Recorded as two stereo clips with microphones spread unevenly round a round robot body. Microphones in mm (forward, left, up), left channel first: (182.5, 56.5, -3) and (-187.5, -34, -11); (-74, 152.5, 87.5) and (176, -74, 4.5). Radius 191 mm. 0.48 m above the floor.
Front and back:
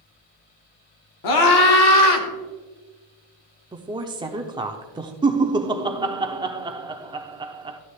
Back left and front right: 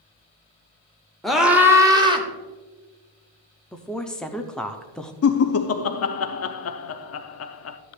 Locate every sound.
1.2 s a scream: 35° left, 1.6 m; by 2.3 s 25° left, 2 m
3.7 s a woman speaking: 105° right, 0.7 m
5.2 s laughter: 135° left, 0.7 m